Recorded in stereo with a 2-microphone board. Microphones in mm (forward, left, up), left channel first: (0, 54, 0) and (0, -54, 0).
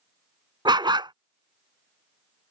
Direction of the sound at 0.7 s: 45° right (ahead or behind).